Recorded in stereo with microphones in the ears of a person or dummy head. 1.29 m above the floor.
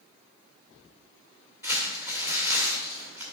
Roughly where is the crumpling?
Centre.